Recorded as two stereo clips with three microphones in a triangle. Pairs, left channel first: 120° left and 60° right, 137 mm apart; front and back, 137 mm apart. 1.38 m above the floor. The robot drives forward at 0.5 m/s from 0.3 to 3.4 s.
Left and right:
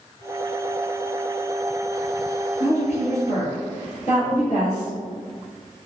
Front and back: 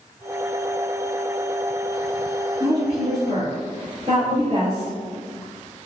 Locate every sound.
2.6 s a woman speaking: 140° left, 2.0 m; by 4.9 s 150° left, 2.5 m